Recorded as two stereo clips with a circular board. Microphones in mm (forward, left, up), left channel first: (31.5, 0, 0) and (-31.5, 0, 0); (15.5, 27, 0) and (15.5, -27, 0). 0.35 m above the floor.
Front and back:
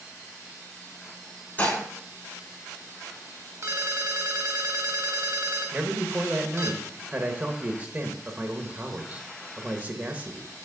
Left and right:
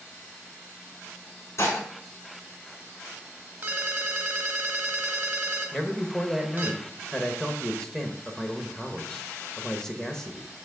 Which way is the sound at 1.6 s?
60° left.